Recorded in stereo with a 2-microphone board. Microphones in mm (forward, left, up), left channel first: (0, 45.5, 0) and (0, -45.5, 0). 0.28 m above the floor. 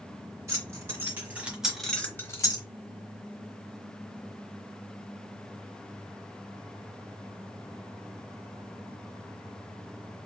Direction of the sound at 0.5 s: 30° right (ahead or behind).